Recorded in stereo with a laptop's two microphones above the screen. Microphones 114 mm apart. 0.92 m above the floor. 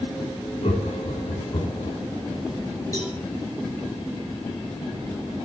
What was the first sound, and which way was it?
Laughter, 65° left (ahead or behind).